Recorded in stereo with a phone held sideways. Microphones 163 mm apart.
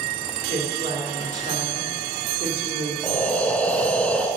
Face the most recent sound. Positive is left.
turn(degrees=5)  # may be behind; listen again after turning